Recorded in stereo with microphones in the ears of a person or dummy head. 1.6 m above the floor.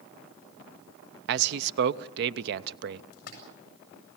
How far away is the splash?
About 6.5 m.